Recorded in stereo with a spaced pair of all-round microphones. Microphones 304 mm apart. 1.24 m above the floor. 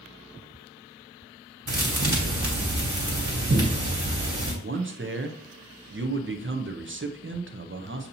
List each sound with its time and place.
1.7 s a thud: 70° right (ahead or behind), 1.8 m
4.6 s a man speaking: 40° right (ahead or behind), 0.5 m